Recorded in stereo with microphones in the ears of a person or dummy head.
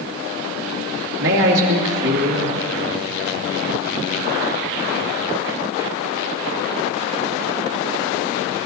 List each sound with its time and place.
1.2 s a man speaking: 65° right (ahead or behind), 2.5 m